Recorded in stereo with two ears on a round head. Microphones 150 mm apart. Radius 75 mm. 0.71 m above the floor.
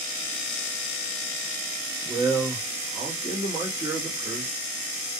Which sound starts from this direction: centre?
A man speaking, at 2.0 s.